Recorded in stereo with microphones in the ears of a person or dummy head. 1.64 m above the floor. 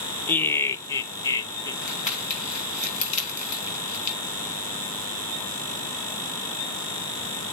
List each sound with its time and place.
0.3 s laughter: 15° left (ahead or behind), 0.9 m; by 1.7 s 25° left (ahead or behind), 1.9 m
1.8 s crumpling: 45° left (ahead or behind), 3 m